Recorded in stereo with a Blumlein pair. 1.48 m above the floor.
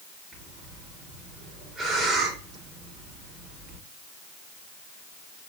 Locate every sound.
0.3 s breathing: 10° right, 1.5 m